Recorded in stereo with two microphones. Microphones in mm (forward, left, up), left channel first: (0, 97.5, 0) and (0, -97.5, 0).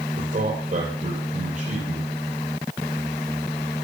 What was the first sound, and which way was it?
A man speaking, 50° right (ahead or behind).